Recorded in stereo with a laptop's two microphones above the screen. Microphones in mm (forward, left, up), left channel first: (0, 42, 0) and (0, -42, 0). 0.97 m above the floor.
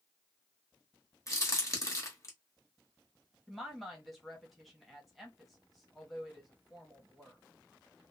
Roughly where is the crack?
Left.